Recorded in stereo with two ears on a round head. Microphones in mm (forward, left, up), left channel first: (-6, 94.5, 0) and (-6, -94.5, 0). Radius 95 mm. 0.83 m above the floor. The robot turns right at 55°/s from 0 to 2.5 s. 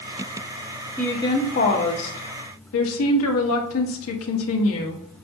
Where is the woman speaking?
5° left, 1.2 m; by 5.0 s 90° left, 1.2 m.